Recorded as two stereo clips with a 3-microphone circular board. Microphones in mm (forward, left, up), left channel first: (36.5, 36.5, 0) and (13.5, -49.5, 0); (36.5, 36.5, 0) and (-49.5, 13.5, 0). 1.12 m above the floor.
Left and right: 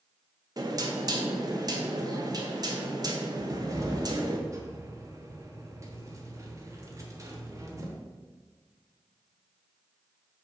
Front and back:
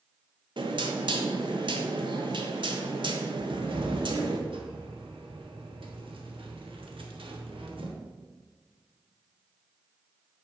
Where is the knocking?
145° right, 0.9 m.